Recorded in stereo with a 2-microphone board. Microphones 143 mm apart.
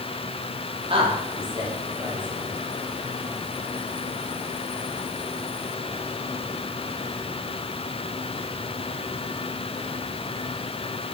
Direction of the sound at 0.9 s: 40° right (ahead or behind).